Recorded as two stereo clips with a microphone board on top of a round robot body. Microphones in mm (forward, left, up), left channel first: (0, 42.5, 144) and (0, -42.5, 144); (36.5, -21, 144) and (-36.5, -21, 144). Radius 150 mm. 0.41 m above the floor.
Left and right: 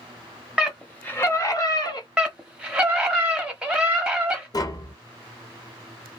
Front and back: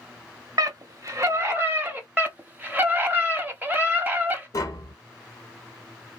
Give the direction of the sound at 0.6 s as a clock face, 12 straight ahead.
6 o'clock.